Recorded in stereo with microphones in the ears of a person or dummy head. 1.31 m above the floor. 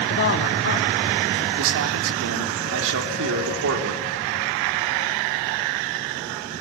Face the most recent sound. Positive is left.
turn(degrees=-70)  # may be behind; listen again after turning